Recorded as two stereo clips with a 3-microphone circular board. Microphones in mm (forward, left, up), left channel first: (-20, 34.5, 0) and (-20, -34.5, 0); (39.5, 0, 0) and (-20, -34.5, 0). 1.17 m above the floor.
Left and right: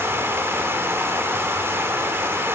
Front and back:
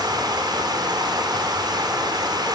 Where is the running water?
145° right, 3 m.